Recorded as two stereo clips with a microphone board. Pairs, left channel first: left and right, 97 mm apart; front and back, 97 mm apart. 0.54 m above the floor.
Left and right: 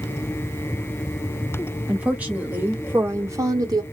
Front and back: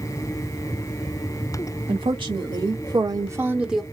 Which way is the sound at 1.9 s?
165° right.